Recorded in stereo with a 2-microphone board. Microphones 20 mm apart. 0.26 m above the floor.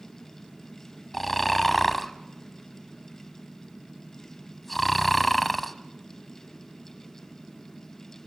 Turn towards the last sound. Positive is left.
turn(degrees=5)  # may be behind; listen again after turning